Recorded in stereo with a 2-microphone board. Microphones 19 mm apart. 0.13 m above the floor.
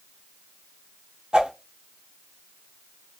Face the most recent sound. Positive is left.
turn(degrees=-55)  # may be behind; listen again after turning